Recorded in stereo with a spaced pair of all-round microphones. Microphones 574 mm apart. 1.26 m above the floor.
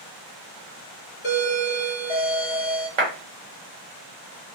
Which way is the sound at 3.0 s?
65° right (ahead or behind).